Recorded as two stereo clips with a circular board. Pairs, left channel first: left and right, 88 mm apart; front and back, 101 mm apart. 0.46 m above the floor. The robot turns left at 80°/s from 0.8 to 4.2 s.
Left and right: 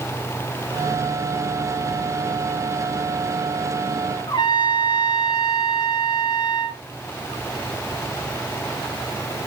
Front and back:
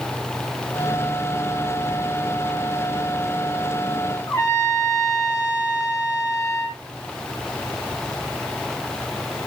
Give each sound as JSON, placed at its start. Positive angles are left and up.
{"t": 4.3, "sound": "a trumpet", "azimuth_deg": 60, "distance_m": 2.5}